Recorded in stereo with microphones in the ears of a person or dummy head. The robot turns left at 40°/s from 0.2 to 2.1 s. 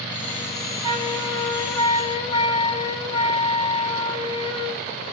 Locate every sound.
0.8 s a flute: 160° right, 2.5 m; by 4.8 s 150° left, 2.5 m